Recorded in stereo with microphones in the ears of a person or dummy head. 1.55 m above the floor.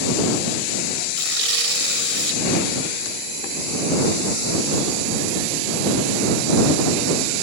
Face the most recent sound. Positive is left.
turn(degrees=-60)  # may be behind; listen again after turning